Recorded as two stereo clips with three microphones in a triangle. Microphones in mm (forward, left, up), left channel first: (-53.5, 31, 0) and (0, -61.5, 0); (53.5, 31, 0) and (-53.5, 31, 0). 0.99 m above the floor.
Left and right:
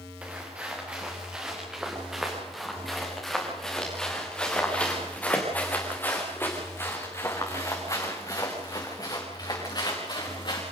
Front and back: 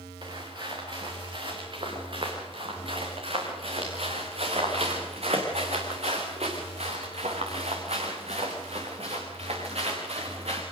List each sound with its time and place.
0.2 s footsteps: 135° right, 6.5 m; by 10.6 s 165° left, 6 m